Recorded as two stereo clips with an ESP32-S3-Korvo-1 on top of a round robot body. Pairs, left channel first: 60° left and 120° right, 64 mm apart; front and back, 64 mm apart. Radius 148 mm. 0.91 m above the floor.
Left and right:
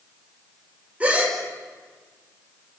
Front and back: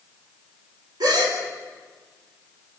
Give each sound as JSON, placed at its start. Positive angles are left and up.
{"t": 1.0, "sound": "a gasp", "azimuth_deg": 170, "distance_m": 5.0}